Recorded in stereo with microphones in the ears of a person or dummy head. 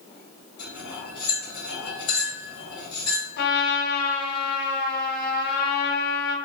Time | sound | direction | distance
0.6 | cutlery clinking | 45° left (ahead or behind) | 1.1 m
3.4 | a trumpet | 60° left (ahead or behind) | 0.7 m